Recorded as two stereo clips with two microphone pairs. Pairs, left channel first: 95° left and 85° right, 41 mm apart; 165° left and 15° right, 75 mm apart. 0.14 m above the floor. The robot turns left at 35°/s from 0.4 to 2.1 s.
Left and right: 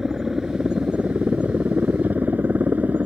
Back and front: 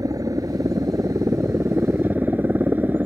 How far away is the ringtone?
No ringtone in this recording.